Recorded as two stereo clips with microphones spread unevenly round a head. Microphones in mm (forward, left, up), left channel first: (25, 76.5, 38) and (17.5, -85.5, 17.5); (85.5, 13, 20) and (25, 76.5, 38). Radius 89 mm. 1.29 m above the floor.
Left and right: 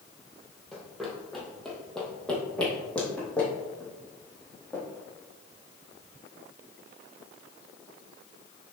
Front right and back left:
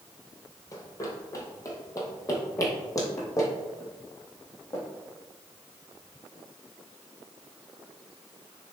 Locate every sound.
0.7 s running footsteps: 5° left, 1.7 m; by 4.8 s 10° left, 3.5 m